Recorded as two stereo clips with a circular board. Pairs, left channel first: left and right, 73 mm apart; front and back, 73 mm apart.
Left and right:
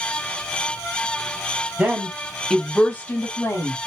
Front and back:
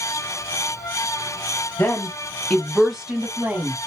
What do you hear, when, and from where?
1.8 s a woman speaking: 35° right, 1.2 m; by 3.8 s 125° left, 1.5 m